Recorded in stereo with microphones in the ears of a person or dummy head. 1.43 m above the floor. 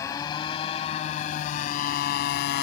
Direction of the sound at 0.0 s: 20° left (ahead or behind).